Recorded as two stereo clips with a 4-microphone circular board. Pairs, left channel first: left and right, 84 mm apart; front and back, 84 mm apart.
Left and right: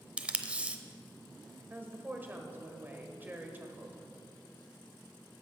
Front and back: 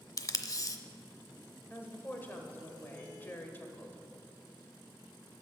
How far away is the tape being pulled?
About 0.6 m.